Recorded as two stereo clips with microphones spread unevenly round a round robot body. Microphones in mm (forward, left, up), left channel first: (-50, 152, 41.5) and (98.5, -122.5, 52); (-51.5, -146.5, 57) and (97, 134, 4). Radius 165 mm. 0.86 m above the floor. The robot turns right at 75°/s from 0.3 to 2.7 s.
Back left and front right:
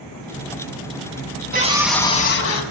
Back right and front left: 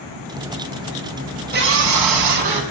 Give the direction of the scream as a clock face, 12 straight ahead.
12 o'clock.